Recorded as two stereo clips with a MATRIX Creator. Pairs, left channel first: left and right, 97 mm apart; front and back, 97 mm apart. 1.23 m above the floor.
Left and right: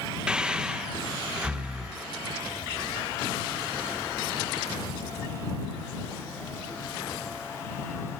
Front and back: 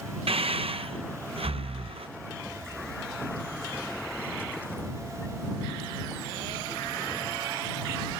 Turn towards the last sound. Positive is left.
turn(degrees=-170)